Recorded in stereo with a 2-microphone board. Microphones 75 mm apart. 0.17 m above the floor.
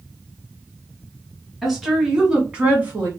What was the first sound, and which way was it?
A woman speaking, centre (ahead or behind).